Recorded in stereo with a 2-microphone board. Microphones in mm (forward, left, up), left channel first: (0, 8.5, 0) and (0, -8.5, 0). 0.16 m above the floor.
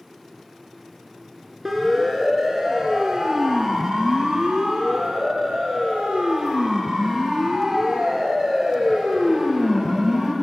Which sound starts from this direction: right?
A siren, at 1.6 s.